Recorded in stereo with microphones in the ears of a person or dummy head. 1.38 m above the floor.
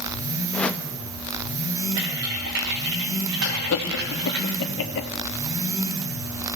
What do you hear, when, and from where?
0.5 s a whoosh: 10° left (ahead or behind), 1.0 m
2.0 s typing on a keyboard: 65° right (ahead or behind), 5 m
3.4 s laughter: 85° left, 2 m